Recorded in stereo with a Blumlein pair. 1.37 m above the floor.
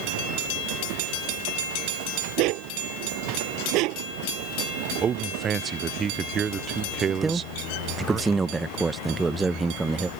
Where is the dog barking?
40° right.